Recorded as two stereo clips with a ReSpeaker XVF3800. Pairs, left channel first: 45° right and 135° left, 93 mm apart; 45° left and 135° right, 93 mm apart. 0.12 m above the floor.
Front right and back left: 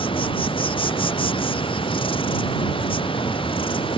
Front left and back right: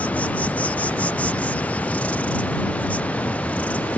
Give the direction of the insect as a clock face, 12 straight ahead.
1 o'clock.